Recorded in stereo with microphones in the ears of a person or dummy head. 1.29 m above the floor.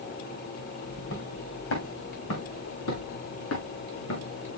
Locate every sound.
0.9 s footsteps: 65° left (ahead or behind), 3.5 m; by 4.5 s 80° left, 8 m